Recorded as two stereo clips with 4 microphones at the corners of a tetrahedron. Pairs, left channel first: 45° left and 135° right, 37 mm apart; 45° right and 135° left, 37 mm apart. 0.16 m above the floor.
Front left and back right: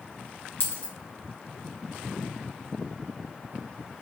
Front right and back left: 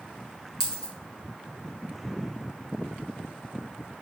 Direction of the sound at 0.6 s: 25° left.